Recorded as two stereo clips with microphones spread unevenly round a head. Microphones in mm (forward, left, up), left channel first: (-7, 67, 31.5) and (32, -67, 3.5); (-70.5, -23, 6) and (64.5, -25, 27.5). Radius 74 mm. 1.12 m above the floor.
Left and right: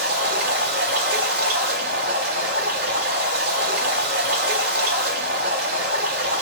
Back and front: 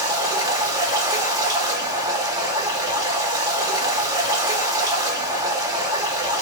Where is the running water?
65° right, 2.0 m.